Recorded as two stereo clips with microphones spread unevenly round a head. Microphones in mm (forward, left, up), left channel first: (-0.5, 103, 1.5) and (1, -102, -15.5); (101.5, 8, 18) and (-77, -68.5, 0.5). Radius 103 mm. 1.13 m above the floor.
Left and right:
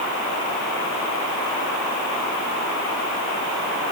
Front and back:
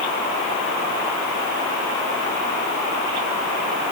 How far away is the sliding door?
No sliding door in this recording.